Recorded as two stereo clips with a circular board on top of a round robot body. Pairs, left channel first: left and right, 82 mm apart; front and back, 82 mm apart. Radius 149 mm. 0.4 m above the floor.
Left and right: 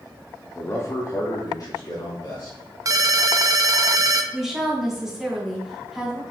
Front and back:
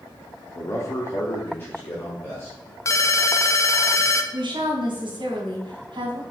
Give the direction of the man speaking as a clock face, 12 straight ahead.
11 o'clock.